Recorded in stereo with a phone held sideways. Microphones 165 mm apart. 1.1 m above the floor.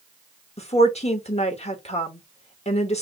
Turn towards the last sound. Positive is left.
turn(degrees=40)  # may be behind; listen again after turning